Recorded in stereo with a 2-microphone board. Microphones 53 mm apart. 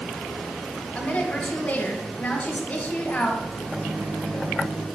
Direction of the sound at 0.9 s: 25° left (ahead or behind).